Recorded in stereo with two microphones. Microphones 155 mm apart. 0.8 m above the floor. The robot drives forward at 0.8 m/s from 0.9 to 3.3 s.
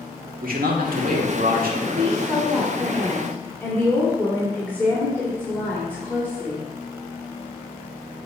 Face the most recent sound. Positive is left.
turn(degrees=10)  # may be behind; listen again after turning